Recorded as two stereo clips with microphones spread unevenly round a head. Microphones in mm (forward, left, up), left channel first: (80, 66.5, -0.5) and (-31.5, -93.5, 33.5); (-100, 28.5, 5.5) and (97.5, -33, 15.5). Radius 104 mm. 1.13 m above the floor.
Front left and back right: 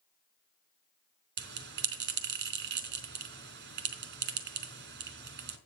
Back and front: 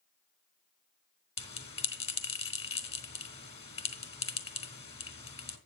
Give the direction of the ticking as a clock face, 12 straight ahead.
I don't hear ticking.